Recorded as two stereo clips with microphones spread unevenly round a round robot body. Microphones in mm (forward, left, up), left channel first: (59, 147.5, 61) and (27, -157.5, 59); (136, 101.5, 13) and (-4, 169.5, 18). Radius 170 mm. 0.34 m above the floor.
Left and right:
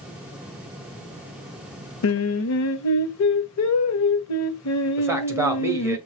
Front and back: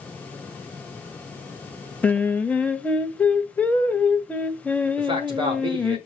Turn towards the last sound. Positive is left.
turn(degrees=-170)